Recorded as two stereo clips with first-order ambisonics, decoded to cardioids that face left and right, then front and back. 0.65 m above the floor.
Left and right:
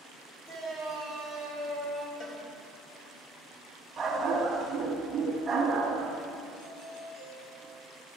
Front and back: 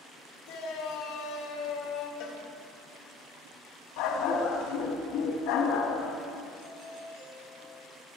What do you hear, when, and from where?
0.5 s a shout: 15° left, 5 m; by 2.1 s 5° left, 5 m
2.2 s a cowbell: 30° left, 3 m
4.0 s a dog barking: 15° right, 2.5 m
6.6 s a doorbell: 115° left, 7.5 m